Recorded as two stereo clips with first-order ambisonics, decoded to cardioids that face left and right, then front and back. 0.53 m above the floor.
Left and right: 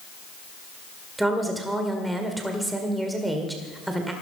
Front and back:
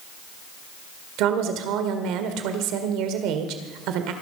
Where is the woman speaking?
175° right, 1.7 m.